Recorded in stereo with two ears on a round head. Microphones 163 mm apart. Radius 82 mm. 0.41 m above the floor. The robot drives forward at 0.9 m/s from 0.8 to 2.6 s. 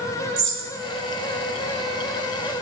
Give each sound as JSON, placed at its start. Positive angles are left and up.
{"t": 0.4, "sound": "a bird", "side_deg": -65, "distance_m": 3.0}